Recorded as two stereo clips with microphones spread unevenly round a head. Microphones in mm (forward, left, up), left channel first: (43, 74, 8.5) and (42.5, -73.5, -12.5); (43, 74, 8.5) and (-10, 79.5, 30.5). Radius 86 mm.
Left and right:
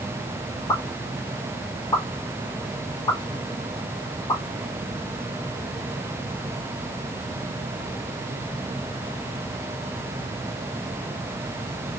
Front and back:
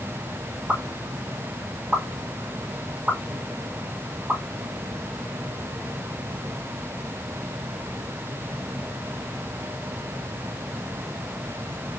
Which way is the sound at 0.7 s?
145° left.